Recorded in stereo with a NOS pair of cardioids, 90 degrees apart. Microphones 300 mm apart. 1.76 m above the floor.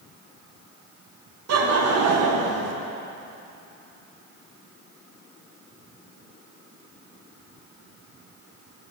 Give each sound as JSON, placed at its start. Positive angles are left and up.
{"t": 1.5, "sound": "laughter", "azimuth_deg": -55, "distance_m": 1.5}